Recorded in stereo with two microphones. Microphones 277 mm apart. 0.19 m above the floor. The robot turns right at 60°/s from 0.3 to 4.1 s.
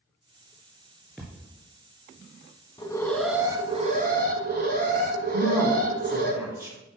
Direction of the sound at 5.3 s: 10° right (ahead or behind).